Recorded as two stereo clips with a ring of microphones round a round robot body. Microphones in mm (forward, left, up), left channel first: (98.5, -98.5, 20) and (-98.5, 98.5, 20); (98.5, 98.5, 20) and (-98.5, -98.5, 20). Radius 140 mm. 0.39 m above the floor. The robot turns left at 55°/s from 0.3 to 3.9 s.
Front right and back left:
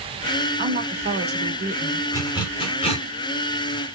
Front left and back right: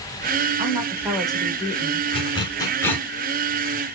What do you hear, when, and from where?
0.6 s a woman speaking: 170° left, 1.0 m; by 2.1 s 90° left, 1.0 m
2.1 s a zipper: 15° left, 1.1 m; by 3.1 s 35° right, 1.1 m